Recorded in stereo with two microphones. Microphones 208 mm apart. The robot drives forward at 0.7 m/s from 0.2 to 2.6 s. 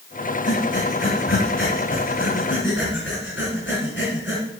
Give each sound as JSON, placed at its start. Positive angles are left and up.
{"t": 0.5, "sound": "breathing", "side_deg": 65, "distance_m": 3.0}